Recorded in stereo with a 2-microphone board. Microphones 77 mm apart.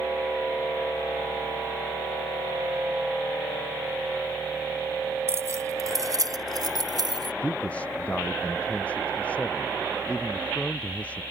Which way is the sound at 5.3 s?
35° right (ahead or behind).